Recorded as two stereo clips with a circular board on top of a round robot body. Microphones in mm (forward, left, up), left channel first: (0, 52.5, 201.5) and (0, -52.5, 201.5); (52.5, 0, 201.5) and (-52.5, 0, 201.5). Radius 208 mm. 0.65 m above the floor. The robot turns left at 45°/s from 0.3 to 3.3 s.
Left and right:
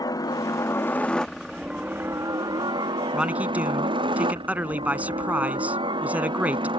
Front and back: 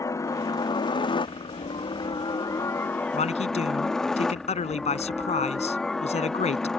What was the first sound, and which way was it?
A helicopter, 50° left.